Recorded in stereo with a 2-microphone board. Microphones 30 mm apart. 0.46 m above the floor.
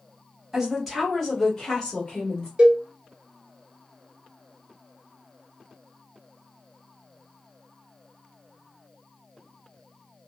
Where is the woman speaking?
10° right (ahead or behind), 1.4 m; by 2.5 s 40° left (ahead or behind), 1.8 m.